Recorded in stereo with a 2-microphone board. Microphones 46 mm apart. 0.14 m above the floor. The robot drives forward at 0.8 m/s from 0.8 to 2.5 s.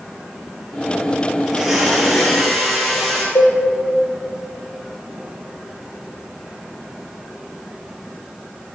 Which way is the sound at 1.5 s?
10° right (ahead or behind).